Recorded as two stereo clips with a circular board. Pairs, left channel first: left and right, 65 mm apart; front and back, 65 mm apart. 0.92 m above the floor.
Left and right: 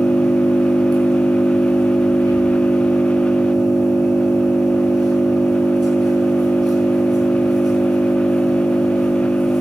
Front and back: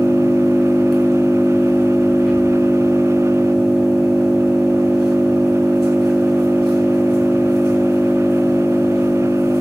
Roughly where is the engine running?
Right.